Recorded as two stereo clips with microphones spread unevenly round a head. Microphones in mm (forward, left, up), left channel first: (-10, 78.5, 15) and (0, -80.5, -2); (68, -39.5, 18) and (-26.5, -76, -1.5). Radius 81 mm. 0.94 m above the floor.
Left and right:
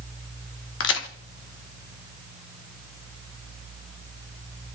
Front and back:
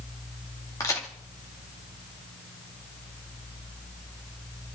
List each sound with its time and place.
0.8 s a crack: 95° left, 1.7 m